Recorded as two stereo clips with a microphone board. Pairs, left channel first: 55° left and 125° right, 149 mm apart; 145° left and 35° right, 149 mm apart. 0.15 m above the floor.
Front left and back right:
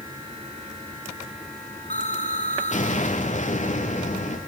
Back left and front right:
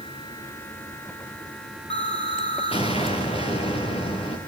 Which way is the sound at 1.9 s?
95° left.